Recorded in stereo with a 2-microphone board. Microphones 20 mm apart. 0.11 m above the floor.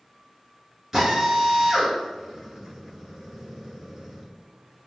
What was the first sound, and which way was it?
A drill, 25° right (ahead or behind).